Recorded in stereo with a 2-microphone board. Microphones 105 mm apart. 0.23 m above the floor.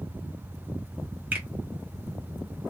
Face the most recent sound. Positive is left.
turn(degrees=-15)  # may be behind; listen again after turning